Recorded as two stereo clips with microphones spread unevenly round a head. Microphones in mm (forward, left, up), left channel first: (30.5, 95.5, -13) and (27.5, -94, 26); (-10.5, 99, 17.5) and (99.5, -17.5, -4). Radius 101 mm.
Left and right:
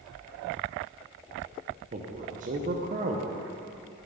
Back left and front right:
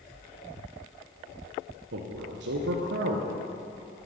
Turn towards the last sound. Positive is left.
turn(degrees=-50)